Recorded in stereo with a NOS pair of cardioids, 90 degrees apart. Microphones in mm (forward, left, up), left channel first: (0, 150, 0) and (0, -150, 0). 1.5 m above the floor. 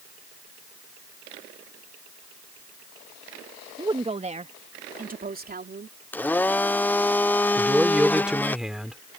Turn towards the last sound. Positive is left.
turn(degrees=0)